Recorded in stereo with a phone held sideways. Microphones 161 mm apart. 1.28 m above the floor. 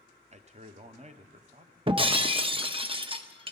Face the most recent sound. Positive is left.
turn(degrees=-30)  # may be behind; listen again after turning